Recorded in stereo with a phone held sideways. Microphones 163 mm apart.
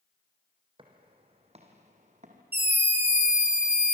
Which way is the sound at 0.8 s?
30° right (ahead or behind).